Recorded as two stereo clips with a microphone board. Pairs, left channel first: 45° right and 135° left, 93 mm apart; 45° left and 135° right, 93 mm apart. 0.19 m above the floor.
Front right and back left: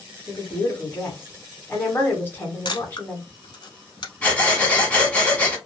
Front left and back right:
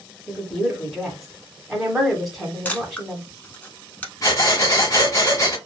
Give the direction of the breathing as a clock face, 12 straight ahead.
11 o'clock.